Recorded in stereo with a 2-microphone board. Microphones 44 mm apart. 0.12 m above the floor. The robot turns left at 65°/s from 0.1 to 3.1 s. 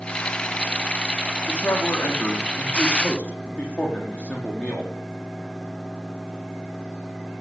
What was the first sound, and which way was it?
A man speaking, 145° left.